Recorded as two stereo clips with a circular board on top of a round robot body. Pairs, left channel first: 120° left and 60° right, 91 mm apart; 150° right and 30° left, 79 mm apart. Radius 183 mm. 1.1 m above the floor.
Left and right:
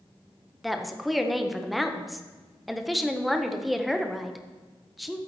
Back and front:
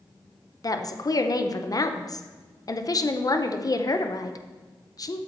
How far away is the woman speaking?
About 0.9 m.